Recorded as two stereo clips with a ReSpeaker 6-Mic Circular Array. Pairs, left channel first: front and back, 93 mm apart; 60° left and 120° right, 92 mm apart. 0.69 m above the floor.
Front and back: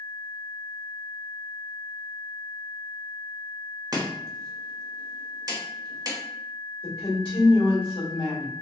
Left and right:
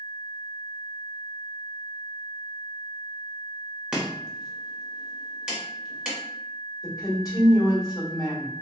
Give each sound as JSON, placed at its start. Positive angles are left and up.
{"t": 3.9, "sound": "chopping", "azimuth_deg": 165, "distance_m": 1.1}
{"t": 6.8, "sound": "a woman speaking", "azimuth_deg": 15, "distance_m": 2.0}